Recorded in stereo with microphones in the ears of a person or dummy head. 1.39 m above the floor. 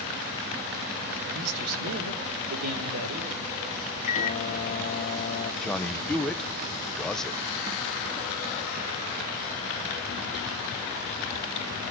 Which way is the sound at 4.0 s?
40° left (ahead or behind).